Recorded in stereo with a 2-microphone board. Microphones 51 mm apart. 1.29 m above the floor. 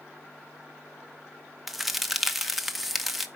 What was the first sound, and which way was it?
A crack, 5° right (ahead or behind).